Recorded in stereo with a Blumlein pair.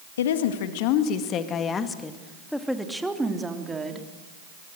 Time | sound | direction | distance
0.2 | a woman speaking | 60° left | 2 m